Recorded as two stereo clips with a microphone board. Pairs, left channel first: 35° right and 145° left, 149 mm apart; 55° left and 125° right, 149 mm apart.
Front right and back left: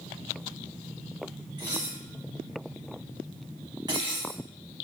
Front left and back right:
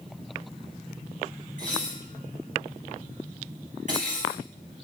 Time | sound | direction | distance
1.6 | dishes clattering | 155° right | 3 m